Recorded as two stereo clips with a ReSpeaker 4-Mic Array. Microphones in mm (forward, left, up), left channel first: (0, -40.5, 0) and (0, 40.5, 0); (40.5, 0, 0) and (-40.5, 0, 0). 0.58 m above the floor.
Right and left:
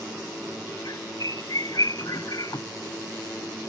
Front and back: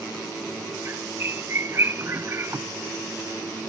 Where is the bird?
125° right.